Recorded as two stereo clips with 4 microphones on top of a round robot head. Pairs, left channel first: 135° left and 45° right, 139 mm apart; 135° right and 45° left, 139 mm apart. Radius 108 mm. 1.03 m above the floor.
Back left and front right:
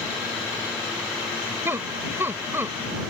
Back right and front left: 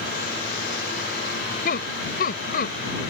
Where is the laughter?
120° right.